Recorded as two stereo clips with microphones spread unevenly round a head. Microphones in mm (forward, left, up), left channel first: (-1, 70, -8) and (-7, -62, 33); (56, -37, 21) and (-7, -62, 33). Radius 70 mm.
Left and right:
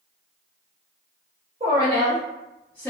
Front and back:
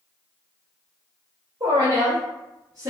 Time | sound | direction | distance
1.6 | a woman speaking | 150° right | 0.9 m